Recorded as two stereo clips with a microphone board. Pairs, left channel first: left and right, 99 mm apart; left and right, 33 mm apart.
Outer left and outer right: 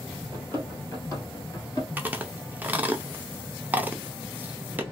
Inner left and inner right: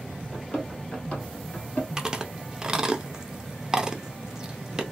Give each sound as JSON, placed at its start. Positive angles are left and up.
{"t": 0.3, "sound": "running footsteps", "side_deg": 20, "distance_m": 2.0}
{"t": 2.0, "sound": "chewing", "side_deg": -20, "distance_m": 0.7}